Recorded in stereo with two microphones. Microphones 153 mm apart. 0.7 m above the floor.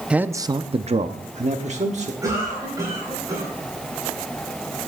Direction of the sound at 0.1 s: 5° right (ahead or behind).